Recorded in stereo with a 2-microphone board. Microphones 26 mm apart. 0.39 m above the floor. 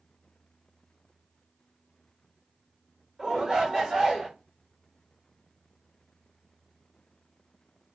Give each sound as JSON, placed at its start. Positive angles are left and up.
{"t": 3.2, "sound": "a shout", "side_deg": -25, "distance_m": 1.3}